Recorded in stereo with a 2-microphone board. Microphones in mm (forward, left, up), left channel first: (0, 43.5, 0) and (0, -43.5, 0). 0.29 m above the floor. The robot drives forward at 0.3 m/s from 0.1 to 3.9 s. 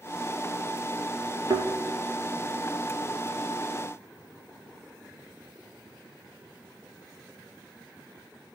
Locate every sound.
1.5 s a thud: 55° right (ahead or behind), 1.9 m